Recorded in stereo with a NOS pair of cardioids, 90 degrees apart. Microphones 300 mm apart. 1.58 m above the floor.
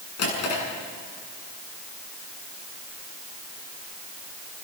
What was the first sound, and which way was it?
A drawer, 55° left.